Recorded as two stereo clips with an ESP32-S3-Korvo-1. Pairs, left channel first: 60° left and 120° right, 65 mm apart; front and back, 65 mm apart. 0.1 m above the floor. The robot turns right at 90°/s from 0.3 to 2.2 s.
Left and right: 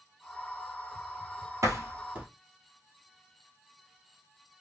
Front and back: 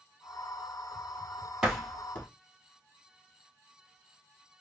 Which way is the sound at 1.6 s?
105° right.